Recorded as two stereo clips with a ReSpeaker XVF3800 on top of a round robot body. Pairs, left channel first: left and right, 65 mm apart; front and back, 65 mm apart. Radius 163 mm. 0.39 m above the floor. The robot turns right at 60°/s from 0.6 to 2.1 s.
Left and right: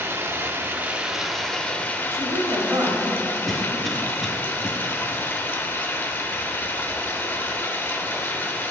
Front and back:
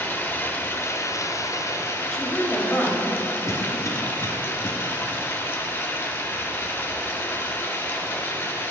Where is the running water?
45° right, 0.8 m; by 8.7 s 45° left, 0.8 m.